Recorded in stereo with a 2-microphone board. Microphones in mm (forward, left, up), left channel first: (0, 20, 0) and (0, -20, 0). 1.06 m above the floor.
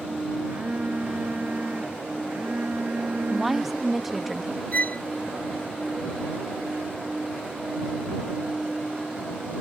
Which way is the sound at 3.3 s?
5° right (ahead or behind).